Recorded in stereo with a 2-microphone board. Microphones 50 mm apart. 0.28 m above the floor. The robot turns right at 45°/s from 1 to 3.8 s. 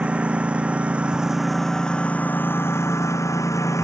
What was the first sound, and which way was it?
A lawn mower, 25° right.